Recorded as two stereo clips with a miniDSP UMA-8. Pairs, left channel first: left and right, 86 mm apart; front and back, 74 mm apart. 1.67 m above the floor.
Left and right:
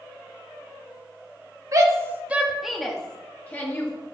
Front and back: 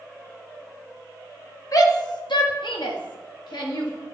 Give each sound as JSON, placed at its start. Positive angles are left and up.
{"t": 1.7, "sound": "a shout", "azimuth_deg": -40, "distance_m": 1.0}